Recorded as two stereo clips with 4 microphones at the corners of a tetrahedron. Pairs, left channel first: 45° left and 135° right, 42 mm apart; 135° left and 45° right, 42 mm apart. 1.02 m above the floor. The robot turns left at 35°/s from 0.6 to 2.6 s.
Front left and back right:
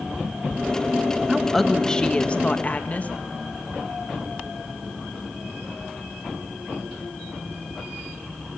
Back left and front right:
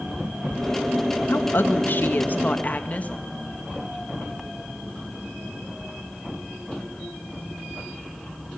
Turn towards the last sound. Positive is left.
turn(degrees=90)